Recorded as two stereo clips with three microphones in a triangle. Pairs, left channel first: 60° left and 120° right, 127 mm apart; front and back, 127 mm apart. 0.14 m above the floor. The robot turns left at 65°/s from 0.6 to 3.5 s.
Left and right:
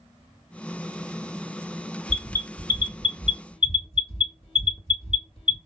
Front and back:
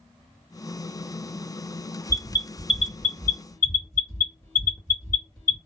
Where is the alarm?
140° left, 2 m; by 5.6 s 45° left, 2 m.